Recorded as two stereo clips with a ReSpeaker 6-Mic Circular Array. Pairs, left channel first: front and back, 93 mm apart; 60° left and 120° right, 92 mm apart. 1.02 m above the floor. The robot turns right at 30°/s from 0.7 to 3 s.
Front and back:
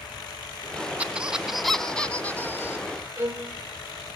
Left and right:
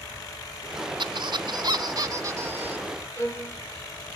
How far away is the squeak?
About 1.5 m.